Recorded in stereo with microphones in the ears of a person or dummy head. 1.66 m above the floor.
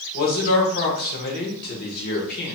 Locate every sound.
0.1 s a man speaking: 50° left (ahead or behind), 1.5 m